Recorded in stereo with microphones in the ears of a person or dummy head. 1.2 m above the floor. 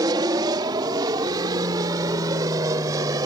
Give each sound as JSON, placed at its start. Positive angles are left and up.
{"t": 0.0, "sound": "an aircraft", "side_deg": -20}